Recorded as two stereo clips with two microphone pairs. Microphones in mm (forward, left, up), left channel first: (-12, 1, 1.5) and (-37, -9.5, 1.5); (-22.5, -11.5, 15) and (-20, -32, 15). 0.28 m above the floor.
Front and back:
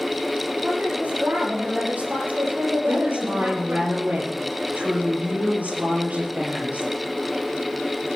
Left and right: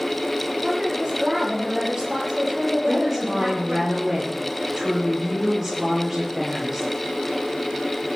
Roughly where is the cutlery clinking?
No cutlery clinking in this recording.